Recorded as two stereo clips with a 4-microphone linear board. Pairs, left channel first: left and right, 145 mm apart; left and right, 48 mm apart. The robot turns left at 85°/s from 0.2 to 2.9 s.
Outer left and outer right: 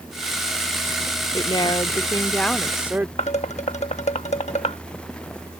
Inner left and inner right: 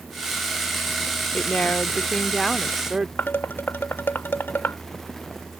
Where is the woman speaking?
110° left; by 3.1 s 25° right.